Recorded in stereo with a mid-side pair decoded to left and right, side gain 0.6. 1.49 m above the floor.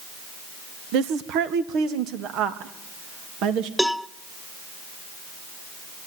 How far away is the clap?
I don't hear a clap.